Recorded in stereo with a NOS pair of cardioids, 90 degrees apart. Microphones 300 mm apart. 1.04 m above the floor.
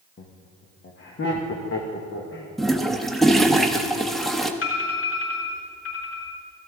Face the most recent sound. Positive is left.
turn(degrees=55)